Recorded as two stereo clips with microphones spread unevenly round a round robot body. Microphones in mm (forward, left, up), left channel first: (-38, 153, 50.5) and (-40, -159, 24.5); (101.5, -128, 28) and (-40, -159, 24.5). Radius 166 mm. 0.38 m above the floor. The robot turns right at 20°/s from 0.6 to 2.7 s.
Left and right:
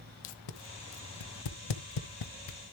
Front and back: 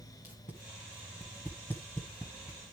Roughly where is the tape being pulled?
Left.